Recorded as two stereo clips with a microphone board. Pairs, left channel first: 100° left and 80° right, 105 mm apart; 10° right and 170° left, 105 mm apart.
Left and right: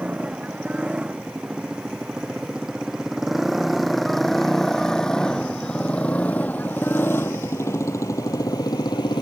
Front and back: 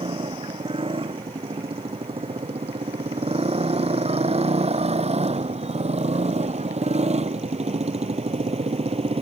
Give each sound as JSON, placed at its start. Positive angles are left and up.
{"t": 0.0, "sound": "a motorcycle", "azimuth_deg": -160}